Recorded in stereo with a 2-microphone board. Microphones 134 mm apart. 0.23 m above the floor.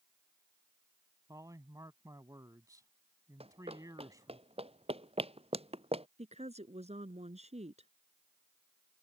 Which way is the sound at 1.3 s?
25° right (ahead or behind).